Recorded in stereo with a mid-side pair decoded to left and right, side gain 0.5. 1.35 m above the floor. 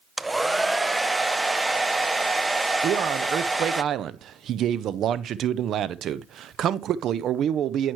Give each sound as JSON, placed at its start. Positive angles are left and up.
{"t": 0.2, "sound": "a hair dryer", "azimuth_deg": -10, "distance_m": 0.6}
{"t": 2.8, "sound": "a man speaking", "azimuth_deg": -60, "distance_m": 0.6}